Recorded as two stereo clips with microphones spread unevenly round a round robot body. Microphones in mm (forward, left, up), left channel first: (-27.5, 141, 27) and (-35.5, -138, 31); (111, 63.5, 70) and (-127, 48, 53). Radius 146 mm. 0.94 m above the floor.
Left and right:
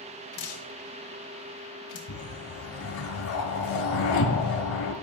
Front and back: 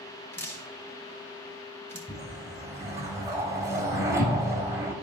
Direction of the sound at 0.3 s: 85° left.